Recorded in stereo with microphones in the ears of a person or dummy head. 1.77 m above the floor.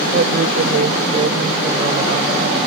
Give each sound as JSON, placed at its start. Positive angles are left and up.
{"t": 0.1, "sound": "a woman speaking", "side_deg": -45}